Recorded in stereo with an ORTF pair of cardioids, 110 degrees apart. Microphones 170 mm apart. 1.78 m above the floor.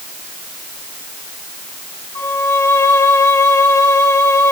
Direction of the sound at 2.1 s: 15° left.